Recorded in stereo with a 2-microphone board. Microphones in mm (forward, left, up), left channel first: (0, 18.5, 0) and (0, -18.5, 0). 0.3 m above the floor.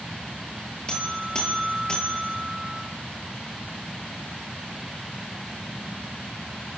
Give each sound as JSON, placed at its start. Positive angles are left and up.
{"t": 0.9, "sound": "a buzzer", "side_deg": 25, "distance_m": 7.0}